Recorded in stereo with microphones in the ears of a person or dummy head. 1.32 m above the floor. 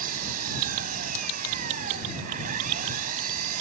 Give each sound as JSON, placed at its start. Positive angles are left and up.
{"t": 0.0, "sound": "an engine running", "side_deg": -45}